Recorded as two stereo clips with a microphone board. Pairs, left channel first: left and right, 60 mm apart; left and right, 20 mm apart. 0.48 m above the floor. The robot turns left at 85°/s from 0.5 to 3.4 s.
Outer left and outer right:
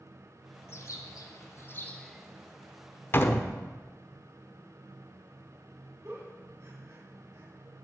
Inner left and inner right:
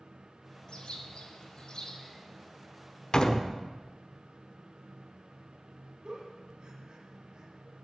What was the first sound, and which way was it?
A bird, 130° left.